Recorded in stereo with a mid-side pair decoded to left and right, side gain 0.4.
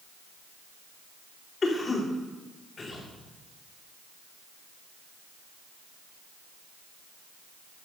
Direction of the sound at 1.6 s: 40° left.